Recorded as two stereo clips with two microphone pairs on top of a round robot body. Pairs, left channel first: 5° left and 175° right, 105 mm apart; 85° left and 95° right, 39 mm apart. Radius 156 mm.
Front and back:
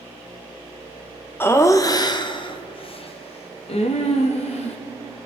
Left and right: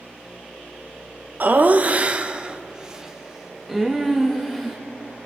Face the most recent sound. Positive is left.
turn(degrees=5)